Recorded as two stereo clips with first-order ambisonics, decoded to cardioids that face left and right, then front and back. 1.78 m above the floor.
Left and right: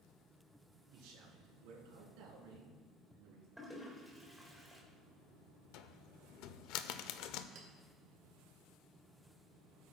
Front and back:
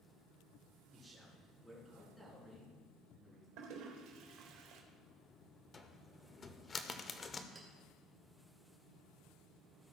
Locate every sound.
0.9 s a man speaking: 95° right, 3.5 m; by 3.5 s 70° right, 3.5 m
3.6 s a toilet flushing: 175° right, 1.6 m
5.7 s a cupboard door: 70° left, 0.6 m
7.5 s a clink: 115° right, 1.8 m